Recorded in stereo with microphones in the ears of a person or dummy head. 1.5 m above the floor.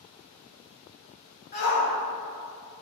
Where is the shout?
50° left (ahead or behind), 1.0 m.